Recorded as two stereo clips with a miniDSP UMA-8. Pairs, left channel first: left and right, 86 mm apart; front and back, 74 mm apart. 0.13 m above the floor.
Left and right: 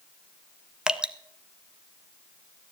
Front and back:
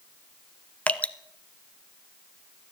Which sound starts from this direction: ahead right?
Dripping, at 0.9 s.